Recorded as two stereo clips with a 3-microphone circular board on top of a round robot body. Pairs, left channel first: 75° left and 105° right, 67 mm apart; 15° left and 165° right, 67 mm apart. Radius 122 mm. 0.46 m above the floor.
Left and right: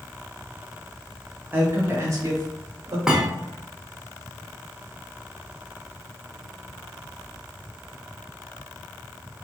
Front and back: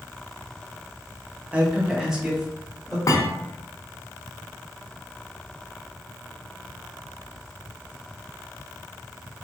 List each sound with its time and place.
1.5 s a man speaking: 120° right, 0.8 m; by 3.0 s 65° right, 1.4 m
3.1 s a thud: 20° right, 0.7 m